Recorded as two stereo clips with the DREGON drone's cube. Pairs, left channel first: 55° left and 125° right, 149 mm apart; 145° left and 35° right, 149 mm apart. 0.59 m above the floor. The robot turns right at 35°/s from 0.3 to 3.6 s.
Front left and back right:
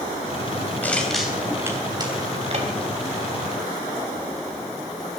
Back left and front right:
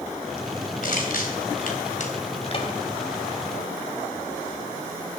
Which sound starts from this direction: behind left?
Crushing, at 0.8 s.